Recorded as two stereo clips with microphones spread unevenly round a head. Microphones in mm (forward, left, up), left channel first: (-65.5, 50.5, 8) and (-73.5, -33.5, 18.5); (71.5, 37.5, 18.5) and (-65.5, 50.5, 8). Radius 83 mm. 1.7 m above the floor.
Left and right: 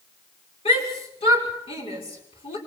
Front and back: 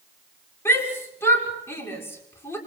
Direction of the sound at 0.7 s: 65° left.